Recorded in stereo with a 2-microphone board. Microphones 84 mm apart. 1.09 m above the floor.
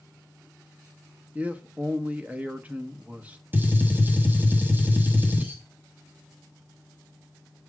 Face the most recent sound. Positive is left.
turn(degrees=-25)  # may be behind; listen again after turning